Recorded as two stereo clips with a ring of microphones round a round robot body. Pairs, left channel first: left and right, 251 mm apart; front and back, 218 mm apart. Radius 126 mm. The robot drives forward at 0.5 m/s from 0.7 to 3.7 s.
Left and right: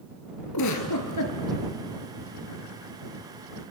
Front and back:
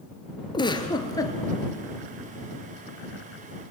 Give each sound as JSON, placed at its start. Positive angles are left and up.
{"t": 0.5, "sound": "a giggle", "azimuth_deg": 70, "distance_m": 3.0}